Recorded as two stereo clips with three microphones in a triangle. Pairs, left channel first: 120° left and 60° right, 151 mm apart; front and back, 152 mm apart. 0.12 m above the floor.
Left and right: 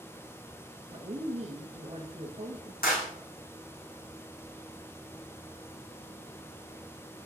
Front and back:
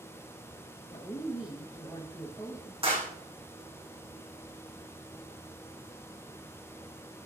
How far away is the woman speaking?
About 1.7 m.